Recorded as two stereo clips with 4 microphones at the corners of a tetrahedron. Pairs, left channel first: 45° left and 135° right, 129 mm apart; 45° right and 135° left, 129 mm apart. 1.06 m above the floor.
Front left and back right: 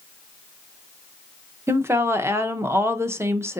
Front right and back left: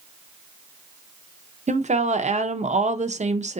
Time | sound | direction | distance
1.7 | a woman speaking | 155° left | 0.6 m